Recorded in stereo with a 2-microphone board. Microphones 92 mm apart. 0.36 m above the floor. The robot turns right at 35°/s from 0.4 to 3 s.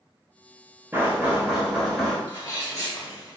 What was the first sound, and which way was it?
Knocking, 35° right.